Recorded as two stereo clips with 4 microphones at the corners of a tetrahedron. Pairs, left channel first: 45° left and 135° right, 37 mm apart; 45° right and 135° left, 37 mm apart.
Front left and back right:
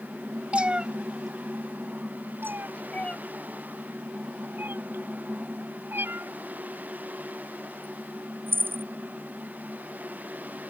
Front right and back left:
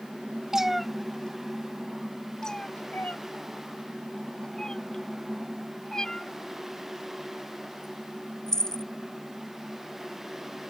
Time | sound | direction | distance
0.5 | a cat meowing | 160° right | ?
2.4 | a cat meowing | 115° right | ?